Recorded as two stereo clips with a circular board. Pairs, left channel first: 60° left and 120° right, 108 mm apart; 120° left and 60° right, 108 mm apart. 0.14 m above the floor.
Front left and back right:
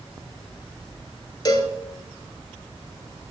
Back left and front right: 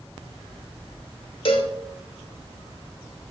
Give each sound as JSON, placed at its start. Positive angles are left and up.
{"t": 1.4, "sound": "a cowbell", "azimuth_deg": 105, "distance_m": 0.5}